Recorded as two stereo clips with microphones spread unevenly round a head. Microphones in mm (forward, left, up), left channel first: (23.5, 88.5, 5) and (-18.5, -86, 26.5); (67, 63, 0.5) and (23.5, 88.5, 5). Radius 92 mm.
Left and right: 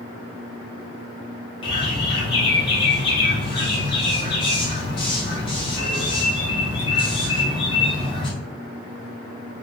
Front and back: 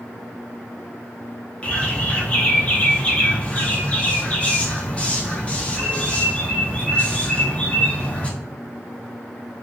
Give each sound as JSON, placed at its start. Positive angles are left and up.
{"t": 1.6, "sound": "a bird", "azimuth_deg": 20, "distance_m": 0.6}